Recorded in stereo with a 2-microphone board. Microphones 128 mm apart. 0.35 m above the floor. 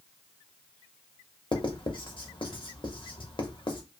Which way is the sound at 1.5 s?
40° left (ahead or behind).